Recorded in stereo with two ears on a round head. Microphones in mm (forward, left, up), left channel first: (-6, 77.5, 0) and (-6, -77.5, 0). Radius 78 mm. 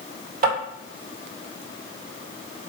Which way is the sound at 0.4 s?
50° right (ahead or behind).